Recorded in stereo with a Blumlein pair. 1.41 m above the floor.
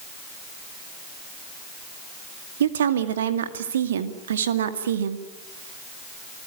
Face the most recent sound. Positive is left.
turn(degrees=-65)